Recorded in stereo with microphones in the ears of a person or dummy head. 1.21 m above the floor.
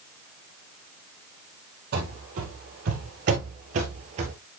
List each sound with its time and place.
1.9 s running footsteps: 50° right (ahead or behind), 2.5 m; by 4.3 s 35° right (ahead or behind), 1.5 m